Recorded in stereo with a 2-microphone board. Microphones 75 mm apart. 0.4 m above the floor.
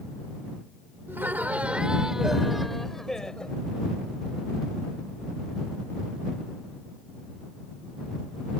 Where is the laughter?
30° right (ahead or behind); by 3.6 s 10° left (ahead or behind).